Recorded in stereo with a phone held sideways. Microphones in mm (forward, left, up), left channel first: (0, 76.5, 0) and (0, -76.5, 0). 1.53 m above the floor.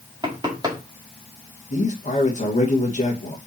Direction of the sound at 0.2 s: 30° right (ahead or behind).